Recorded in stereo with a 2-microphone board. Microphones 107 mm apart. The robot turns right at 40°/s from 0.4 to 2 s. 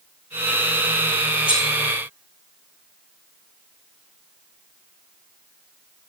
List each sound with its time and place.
1.5 s cutlery clinking: 55° left (ahead or behind), 1.6 m; by 1.7 s 50° left (ahead or behind), 1.6 m